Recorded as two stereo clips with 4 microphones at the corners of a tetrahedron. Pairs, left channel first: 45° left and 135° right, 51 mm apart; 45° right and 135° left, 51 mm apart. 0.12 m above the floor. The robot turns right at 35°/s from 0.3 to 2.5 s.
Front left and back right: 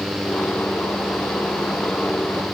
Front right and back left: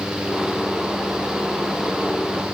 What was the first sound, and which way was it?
Only background noise.